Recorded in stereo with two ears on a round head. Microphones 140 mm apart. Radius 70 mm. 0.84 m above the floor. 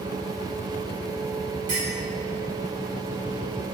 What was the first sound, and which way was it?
A clink, 55° right (ahead or behind).